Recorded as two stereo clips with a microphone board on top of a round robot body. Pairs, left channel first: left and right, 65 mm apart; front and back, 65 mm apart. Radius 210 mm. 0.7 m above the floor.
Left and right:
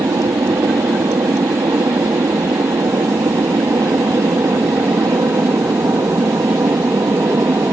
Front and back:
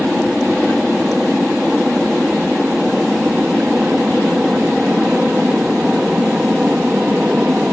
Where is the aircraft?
90° right; by 7.7 s 105° right.